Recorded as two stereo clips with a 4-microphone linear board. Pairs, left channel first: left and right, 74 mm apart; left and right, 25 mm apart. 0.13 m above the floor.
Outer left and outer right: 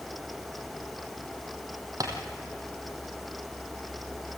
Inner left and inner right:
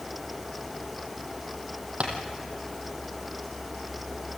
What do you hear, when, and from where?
2.0 s tapping: 55° right (ahead or behind), 3 m